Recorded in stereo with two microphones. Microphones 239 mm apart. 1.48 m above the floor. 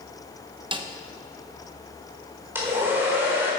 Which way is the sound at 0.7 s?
20° right (ahead or behind).